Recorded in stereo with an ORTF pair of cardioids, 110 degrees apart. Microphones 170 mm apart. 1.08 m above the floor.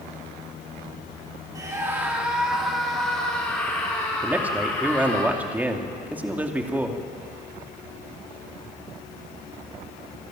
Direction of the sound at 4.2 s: 10° right.